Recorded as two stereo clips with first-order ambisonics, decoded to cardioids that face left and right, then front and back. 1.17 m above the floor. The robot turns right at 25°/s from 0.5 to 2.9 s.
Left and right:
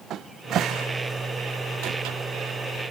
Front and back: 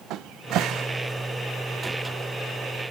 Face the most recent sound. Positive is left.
turn(degrees=-80)